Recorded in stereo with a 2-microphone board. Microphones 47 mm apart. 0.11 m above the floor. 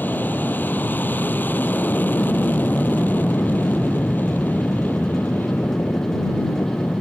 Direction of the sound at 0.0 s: 40° left (ahead or behind).